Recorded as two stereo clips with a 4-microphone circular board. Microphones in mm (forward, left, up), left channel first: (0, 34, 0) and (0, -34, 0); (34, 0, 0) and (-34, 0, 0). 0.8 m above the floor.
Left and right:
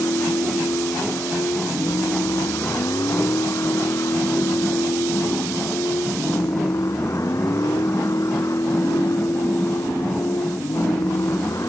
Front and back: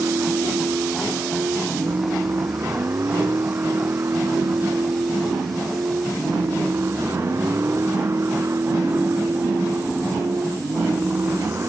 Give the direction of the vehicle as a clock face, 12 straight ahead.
8 o'clock.